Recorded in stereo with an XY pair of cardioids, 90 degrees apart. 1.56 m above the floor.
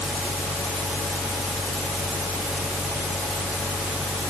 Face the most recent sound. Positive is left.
turn(degrees=15)